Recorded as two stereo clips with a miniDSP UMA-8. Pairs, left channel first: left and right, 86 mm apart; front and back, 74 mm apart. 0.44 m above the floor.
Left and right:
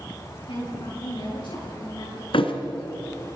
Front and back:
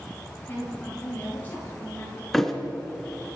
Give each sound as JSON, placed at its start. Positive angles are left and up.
{"t": 0.5, "sound": "a woman speaking", "azimuth_deg": 70, "distance_m": 9.0}
{"t": 2.3, "sound": "a thud", "azimuth_deg": 90, "distance_m": 1.8}